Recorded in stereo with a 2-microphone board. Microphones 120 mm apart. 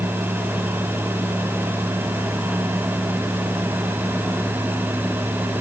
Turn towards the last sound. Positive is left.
No sound to turn to.